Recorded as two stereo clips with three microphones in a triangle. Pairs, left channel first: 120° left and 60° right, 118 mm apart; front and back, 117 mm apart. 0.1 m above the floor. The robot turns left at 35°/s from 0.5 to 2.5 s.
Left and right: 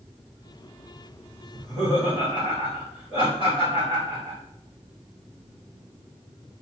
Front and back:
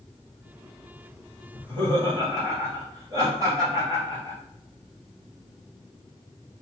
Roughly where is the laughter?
Behind.